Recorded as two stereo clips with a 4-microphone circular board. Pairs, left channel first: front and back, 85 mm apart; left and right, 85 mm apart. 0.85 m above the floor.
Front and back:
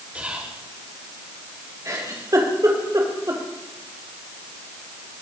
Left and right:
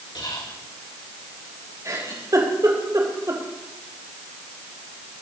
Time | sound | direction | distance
0.1 | whispering | 110° left | 2 m
1.9 | a giggle | 135° right | 4 m